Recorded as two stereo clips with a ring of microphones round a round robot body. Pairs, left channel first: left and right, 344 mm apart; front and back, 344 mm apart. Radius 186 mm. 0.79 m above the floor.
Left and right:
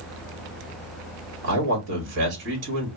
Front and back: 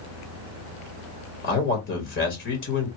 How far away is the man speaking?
About 1.5 m.